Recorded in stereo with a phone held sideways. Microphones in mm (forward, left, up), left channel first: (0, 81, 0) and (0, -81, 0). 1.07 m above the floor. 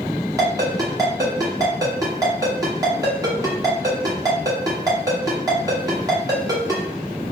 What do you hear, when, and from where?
0.4 s a ringtone: 20° right (ahead or behind), 1.5 m